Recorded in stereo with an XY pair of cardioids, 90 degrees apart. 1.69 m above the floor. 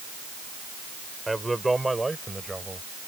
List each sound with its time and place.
1.3 s a man speaking: 10° right; by 2.9 s 20° right